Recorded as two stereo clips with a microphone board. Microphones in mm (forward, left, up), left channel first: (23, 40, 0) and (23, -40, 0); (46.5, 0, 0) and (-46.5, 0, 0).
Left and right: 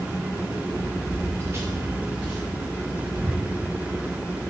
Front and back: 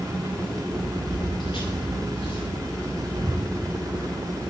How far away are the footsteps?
About 3 m.